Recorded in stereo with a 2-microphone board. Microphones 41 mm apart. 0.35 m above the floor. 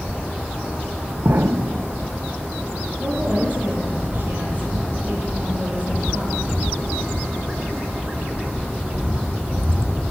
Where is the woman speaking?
40° right (ahead or behind), 9 m.